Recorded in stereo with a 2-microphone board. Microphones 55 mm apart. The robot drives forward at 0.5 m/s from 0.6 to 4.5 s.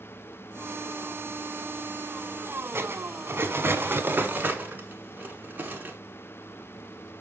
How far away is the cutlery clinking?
About 0.8 m.